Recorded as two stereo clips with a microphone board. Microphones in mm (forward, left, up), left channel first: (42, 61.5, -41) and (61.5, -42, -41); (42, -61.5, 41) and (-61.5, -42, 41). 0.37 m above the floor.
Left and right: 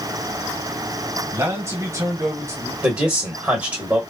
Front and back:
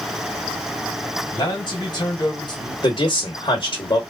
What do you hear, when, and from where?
1.3 s a man speaking: 30° right, 1.6 m
2.8 s a man speaking: 10° right, 1.1 m